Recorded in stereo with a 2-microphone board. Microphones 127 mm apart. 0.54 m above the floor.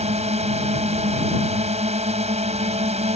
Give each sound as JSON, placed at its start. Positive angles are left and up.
{"t": 0.0, "sound": "a drone", "side_deg": -60}